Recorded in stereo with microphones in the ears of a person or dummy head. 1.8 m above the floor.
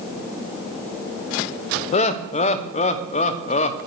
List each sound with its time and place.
1.9 s laughter: 40° left (ahead or behind), 1.0 m